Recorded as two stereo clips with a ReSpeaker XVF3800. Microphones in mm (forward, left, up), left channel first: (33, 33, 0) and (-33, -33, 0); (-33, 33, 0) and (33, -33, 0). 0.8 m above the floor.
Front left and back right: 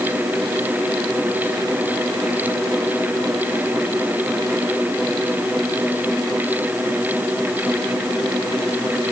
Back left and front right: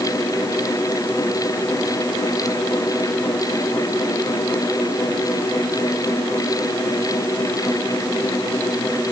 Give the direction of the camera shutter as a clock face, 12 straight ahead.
I don't hear a camera shutter.